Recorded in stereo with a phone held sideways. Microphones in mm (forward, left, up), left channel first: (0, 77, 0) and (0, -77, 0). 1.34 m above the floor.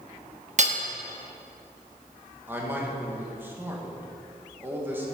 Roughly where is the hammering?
Right.